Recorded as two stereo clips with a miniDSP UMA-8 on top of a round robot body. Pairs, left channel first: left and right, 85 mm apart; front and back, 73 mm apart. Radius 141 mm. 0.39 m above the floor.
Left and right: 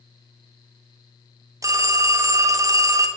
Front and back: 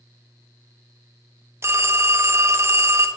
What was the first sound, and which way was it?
A phone ringing, 130° right.